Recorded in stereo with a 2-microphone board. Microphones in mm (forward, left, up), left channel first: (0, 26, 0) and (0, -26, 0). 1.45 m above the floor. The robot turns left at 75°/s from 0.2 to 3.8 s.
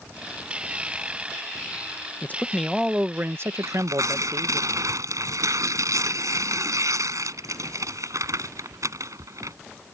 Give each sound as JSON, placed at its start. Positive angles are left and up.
{"t": 2.2, "sound": "a man speaking", "azimuth_deg": 40}
{"t": 3.6, "sound": "tearing paper", "side_deg": -70}